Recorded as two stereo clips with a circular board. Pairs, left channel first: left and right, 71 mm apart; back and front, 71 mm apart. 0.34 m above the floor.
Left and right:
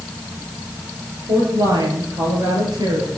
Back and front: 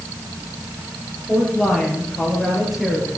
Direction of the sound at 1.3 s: 90° right.